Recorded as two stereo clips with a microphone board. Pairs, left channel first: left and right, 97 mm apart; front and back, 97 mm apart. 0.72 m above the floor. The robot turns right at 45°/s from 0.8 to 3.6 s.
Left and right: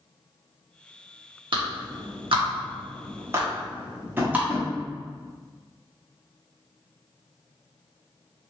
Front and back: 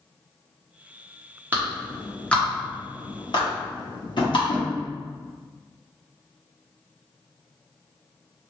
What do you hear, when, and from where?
1.5 s a clap: 110° right, 1.0 m; by 4.5 s 20° right, 1.0 m
4.2 s tapping: 25° right, 1.0 m